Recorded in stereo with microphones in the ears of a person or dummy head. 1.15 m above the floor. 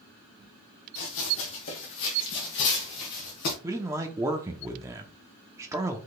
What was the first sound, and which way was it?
Running footsteps, 65° left (ahead or behind).